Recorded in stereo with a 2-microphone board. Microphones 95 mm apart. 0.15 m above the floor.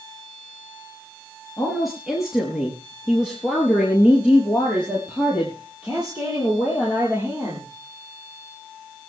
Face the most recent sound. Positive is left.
turn(degrees=-20)  # may be behind; listen again after turning